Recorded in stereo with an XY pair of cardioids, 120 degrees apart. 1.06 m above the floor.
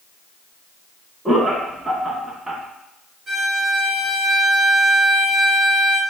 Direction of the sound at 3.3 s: 30° right.